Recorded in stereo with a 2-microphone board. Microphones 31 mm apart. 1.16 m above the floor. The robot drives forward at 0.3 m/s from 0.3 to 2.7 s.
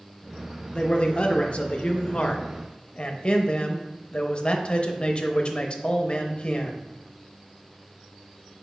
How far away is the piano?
No piano in this recording.